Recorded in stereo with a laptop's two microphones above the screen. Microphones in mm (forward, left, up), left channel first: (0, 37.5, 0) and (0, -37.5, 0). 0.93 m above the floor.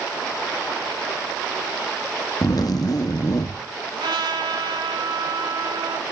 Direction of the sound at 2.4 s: 55° left (ahead or behind).